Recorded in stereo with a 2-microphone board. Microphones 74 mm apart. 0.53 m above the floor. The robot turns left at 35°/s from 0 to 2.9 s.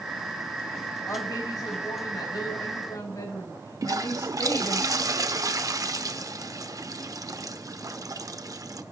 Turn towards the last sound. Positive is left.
turn(degrees=-55)  # may be behind; listen again after turning